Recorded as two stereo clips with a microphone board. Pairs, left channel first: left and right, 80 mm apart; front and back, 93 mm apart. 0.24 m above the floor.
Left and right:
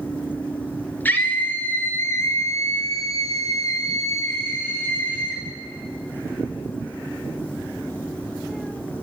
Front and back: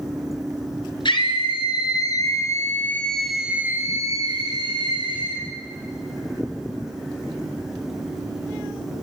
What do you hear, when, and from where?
1.1 s a scream: 25° left, 4 m; by 5.4 s 160° left, 4 m